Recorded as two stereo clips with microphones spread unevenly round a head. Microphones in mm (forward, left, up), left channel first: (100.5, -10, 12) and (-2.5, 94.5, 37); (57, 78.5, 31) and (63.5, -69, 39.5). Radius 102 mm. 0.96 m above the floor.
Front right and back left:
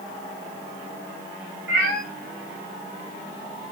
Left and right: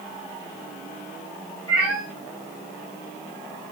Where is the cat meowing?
165° left, 6.5 m.